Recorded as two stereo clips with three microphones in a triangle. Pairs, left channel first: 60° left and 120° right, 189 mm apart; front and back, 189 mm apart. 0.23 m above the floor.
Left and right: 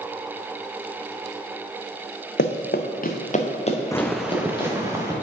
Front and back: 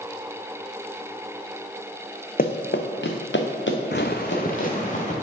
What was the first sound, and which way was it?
Running footsteps, 40° left.